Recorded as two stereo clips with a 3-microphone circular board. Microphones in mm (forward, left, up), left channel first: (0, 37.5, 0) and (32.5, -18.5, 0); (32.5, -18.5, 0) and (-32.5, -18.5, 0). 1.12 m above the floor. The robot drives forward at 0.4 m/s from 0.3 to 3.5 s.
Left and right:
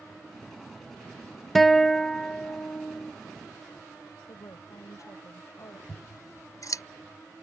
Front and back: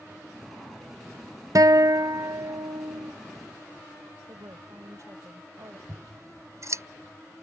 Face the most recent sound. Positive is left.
turn(degrees=145)